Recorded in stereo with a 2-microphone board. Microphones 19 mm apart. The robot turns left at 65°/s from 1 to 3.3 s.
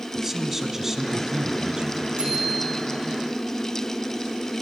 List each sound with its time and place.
0.1 s a man speaking: 20° right, 2.5 m; by 2.1 s 90° right, 2.5 m
2.2 s a bicycle bell: 95° right, 8 m; by 2.8 s 135° right, 8 m